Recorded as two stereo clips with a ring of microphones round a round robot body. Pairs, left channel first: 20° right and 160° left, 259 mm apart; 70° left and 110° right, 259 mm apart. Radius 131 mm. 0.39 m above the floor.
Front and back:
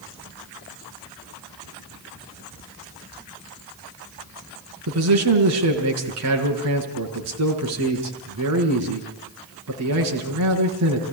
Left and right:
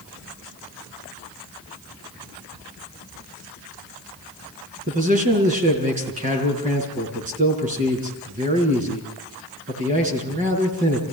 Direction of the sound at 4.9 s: 175° right.